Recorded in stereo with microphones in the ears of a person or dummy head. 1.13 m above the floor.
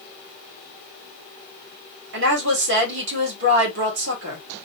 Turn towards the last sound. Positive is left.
turn(degrees=-75)  # may be behind; listen again after turning